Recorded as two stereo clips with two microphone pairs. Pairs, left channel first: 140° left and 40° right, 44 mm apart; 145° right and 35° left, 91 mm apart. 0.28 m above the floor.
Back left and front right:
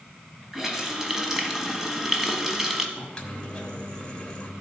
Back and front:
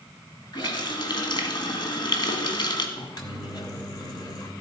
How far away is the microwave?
About 1.4 m.